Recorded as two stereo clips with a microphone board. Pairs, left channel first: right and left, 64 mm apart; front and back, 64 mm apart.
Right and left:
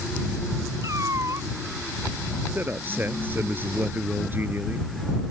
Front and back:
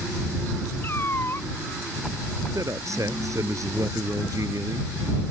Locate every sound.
0.8 s a cat meowing: 55° left
2.5 s a man speaking: 150° left